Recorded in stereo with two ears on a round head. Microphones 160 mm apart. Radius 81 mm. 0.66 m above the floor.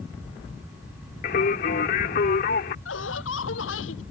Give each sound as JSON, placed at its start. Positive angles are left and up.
{"t": 1.2, "sound": "singing", "side_deg": 55}
{"t": 2.9, "sound": "laughter", "side_deg": 85}